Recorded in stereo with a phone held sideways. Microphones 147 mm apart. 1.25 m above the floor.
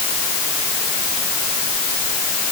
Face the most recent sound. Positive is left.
No sound to turn to.